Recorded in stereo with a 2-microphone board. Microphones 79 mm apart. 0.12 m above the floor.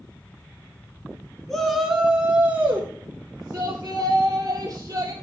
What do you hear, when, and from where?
1.5 s a shout: 5° left (ahead or behind), 1.2 m; by 5.1 s 40° right (ahead or behind), 3 m